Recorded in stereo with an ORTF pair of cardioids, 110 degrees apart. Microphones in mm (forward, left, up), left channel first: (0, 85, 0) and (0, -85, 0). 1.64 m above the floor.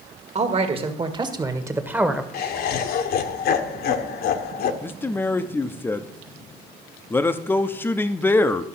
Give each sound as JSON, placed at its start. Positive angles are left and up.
{"t": 0.3, "sound": "a man speaking", "azimuth_deg": -40, "distance_m": 1.8}
{"t": 2.3, "sound": "laughter", "azimuth_deg": 65, "distance_m": 1.3}
{"t": 4.8, "sound": "a man speaking", "azimuth_deg": 10, "distance_m": 0.8}